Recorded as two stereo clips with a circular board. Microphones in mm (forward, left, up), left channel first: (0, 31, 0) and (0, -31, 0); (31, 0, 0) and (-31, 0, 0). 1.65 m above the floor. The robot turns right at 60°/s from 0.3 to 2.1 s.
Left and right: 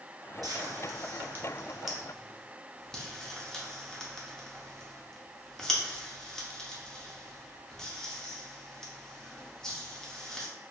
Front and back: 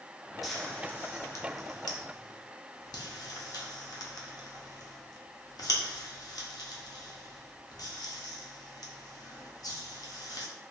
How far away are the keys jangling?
I don't hear keys jangling.